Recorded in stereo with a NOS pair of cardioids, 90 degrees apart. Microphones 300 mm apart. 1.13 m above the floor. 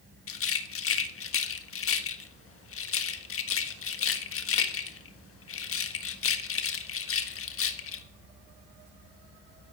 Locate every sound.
0.3 s a rattle: 45° left, 1.5 m